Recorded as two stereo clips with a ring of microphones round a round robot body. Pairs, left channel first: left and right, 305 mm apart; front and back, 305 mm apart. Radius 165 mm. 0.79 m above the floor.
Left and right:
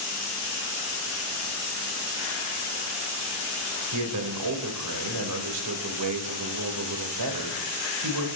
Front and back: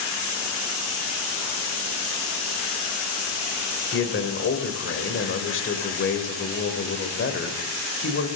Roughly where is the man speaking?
Ahead right.